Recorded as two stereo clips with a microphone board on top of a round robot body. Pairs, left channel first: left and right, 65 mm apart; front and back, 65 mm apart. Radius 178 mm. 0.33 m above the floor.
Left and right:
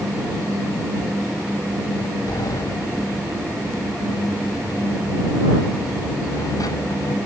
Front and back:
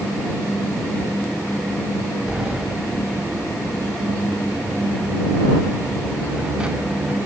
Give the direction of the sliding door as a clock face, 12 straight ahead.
8 o'clock.